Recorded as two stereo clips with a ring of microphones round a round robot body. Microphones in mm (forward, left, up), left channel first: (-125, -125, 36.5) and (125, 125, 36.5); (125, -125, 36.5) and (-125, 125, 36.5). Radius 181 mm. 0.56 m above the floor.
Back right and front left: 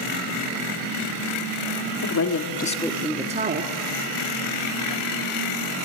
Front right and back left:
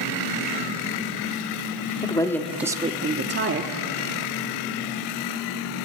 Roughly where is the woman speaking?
Behind right.